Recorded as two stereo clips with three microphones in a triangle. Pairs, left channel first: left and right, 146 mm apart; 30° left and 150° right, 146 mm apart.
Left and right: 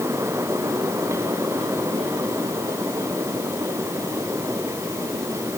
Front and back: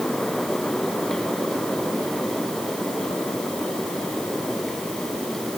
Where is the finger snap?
No finger snap in this recording.